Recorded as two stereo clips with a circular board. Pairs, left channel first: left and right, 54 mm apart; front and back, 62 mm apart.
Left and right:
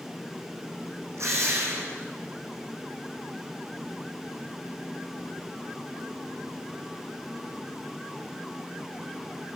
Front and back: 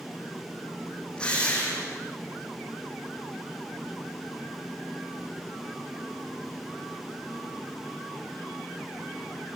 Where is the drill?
70° right, 7.5 m.